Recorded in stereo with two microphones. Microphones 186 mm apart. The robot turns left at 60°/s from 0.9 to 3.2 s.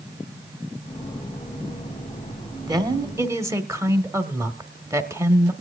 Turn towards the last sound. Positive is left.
turn(degrees=-15)  # may be behind; listen again after turning